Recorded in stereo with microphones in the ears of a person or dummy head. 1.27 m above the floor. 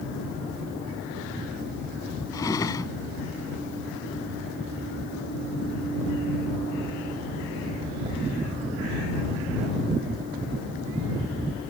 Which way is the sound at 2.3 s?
20° left (ahead or behind).